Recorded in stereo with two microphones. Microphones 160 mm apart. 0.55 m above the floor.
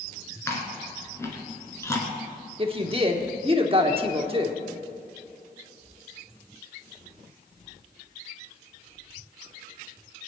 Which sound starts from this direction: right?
A woman speaking, at 2.6 s.